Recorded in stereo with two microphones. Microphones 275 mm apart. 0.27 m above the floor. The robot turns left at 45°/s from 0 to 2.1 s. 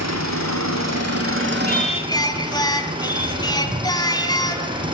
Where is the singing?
30° left (ahead or behind), 2.5 m; by 4.7 s 15° left (ahead or behind), 2.5 m.